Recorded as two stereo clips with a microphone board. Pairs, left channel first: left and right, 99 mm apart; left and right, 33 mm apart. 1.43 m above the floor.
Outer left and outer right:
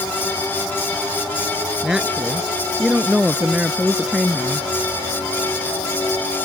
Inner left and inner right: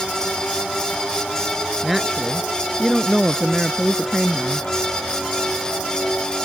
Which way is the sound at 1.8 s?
10° right (ahead or behind).